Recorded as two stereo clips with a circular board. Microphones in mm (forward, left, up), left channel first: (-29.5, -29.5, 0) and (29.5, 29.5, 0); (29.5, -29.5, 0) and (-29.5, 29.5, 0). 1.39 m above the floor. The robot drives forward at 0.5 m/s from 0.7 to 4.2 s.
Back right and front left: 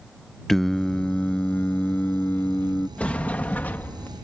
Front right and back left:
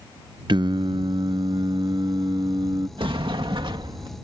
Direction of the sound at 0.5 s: 140° left.